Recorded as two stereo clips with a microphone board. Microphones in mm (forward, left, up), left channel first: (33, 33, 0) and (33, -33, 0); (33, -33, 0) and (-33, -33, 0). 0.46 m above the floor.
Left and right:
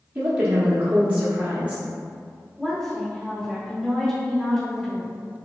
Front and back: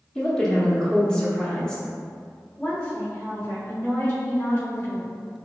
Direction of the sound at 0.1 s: 60° right.